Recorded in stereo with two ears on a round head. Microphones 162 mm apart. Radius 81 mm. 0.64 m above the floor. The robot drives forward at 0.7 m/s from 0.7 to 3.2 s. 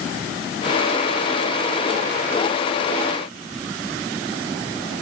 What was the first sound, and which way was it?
Only background noise.